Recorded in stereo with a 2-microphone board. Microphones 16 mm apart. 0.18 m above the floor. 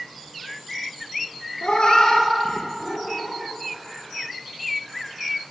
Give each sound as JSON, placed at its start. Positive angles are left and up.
{"t": 1.6, "sound": "a cat meowing", "side_deg": 65, "distance_m": 1.2}